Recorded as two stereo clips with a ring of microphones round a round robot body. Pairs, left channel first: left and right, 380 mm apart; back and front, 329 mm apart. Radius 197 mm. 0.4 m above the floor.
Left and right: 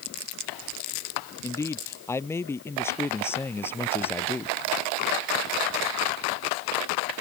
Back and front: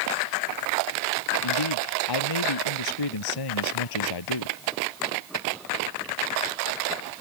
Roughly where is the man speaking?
Behind.